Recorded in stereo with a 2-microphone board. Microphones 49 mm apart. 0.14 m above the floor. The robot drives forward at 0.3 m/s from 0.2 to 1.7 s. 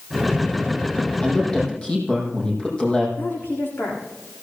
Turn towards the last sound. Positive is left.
turn(degrees=50)  # may be behind; listen again after turning